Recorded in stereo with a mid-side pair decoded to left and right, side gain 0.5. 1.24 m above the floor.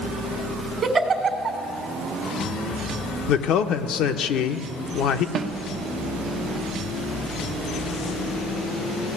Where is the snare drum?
65° right, 0.9 m.